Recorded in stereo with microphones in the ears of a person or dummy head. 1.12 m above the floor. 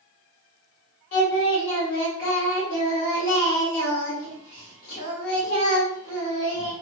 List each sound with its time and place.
1.1 s singing: 75° left (ahead or behind), 1.8 m